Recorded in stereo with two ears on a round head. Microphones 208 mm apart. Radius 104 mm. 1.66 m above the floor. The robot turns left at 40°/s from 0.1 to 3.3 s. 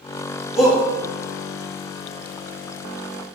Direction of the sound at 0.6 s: 5° right (ahead or behind).